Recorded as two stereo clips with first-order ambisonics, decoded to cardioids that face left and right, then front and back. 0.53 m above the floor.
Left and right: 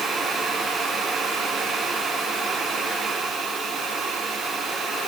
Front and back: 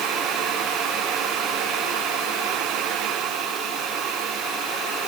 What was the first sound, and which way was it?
Only background noise.